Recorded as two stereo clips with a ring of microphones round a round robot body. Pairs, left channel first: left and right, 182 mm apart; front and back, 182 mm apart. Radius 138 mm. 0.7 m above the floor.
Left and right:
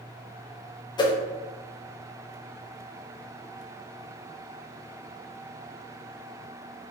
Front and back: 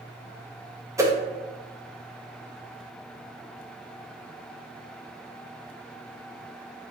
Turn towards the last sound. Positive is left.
turn(degrees=125)